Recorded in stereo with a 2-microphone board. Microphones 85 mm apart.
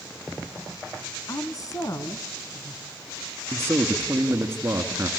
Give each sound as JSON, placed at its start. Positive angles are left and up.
{"t": 1.3, "sound": "a woman speaking", "side_deg": 45, "distance_m": 1.7}
{"t": 3.5, "sound": "a man speaking", "side_deg": -30, "distance_m": 2.5}